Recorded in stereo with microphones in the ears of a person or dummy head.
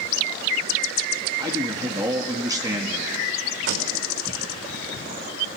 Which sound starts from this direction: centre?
A man speaking, at 1.4 s.